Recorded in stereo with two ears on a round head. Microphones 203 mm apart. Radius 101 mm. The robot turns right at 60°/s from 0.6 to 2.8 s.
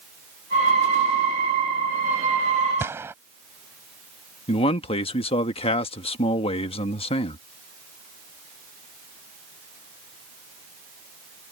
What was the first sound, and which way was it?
A gunshot, 10° right (ahead or behind).